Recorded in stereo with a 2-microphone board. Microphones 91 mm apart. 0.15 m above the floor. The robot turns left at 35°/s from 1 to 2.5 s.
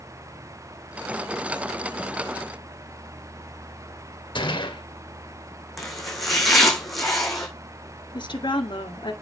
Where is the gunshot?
60° left (ahead or behind), 2 m.